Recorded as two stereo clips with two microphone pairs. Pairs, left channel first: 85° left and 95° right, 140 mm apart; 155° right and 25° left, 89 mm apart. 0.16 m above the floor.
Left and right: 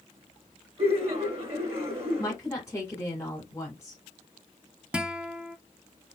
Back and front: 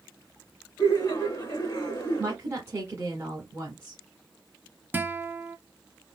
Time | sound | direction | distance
0.8 | laughter | 110° right | 1.7 m
2.2 | a woman speaking | 40° left | 1.7 m
4.9 | a guitar | 25° right | 0.5 m